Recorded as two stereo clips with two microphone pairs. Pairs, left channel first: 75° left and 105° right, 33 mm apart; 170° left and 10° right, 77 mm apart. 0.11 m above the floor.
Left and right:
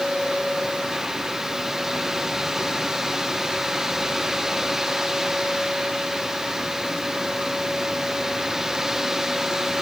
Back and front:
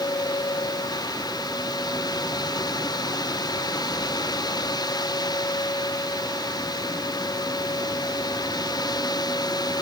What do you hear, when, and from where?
Only background noise.